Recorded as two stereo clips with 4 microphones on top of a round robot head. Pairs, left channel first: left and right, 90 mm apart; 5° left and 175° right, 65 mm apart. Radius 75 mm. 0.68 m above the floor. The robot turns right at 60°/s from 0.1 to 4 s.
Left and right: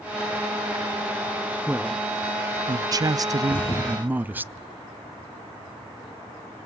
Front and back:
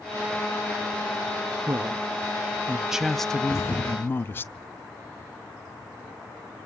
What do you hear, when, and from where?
1.7 s a man speaking: 170° right, 0.6 m; by 4.4 s 30° right, 0.6 m
3.4 s a thud: 50° left, 8.5 m; by 3.9 s 80° left, 8.5 m